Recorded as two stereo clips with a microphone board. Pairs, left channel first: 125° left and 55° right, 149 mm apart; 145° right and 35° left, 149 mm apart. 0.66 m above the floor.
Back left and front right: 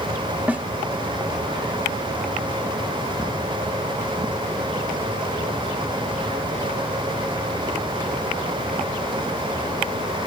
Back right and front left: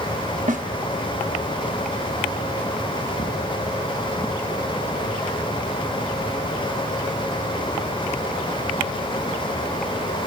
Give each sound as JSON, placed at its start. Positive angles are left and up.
{"t": 0.5, "sound": "a snare drum", "azimuth_deg": 25, "distance_m": 0.7}